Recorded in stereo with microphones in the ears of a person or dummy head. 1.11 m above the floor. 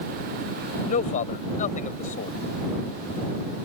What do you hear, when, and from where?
0.9 s a man speaking: 45° left (ahead or behind)